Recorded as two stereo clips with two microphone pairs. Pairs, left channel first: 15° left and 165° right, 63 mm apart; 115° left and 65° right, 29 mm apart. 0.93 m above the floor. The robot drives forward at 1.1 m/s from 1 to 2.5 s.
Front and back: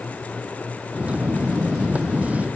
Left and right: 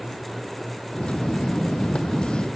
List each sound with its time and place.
Only background noise.